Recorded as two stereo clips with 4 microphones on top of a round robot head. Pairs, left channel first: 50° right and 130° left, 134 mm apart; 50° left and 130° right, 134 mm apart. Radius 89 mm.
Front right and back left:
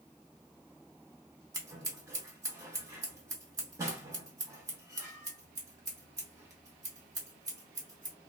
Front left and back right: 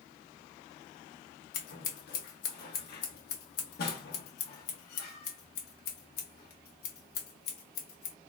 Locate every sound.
1.5 s scissors: 60° left, 1.0 m